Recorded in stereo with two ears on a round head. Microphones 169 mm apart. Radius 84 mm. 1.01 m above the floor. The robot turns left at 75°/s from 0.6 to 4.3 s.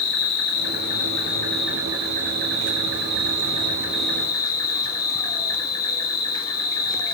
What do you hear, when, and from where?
0.0 s an insect: 75° left, 2.5 m; by 7.1 s 155° left, 2.5 m